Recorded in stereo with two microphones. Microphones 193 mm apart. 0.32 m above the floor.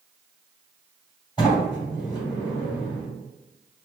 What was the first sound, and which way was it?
A sliding door, 25° left (ahead or behind).